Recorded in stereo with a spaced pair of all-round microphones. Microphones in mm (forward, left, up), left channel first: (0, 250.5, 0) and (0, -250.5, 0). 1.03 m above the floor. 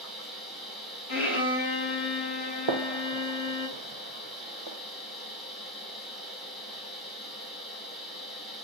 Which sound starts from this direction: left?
A violin, at 1.1 s.